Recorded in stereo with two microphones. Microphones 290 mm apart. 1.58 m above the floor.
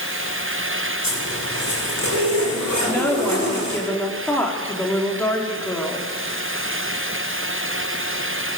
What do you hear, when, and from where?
1.0 s a zipper: 75° right (ahead or behind), 7 m
2.8 s a woman speaking: 5° left (ahead or behind), 4 m